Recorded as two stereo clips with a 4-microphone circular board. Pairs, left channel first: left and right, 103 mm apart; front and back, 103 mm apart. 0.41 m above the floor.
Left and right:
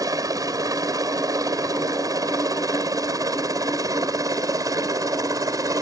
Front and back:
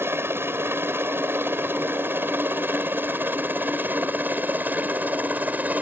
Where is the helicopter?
125° right; by 5.8 s 115° right.